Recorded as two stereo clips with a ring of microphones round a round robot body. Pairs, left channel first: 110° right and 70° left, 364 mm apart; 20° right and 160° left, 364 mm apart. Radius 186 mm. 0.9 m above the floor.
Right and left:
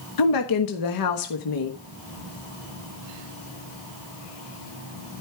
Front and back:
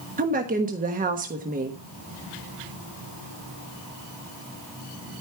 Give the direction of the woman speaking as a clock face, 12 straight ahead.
5 o'clock.